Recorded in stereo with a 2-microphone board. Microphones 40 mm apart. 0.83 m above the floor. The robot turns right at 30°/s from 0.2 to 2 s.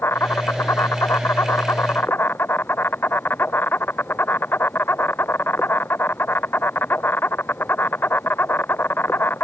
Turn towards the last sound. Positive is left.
turn(degrees=120)